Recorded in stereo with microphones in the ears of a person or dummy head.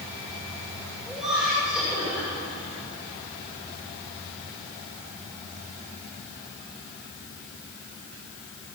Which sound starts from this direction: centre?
Laughter, at 1.1 s.